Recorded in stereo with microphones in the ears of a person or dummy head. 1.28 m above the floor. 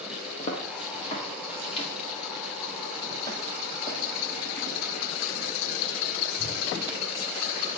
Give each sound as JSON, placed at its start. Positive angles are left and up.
{"t": 0.4, "sound": "footsteps", "side_deg": 40, "distance_m": 6.5}